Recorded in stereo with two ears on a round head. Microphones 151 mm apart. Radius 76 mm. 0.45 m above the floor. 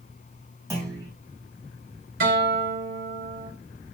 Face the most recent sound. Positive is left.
turn(degrees=-60)  # may be behind; listen again after turning